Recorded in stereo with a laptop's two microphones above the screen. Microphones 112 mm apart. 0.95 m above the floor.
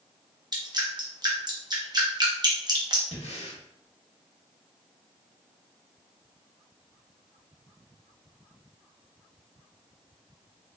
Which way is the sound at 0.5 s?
40° right (ahead or behind).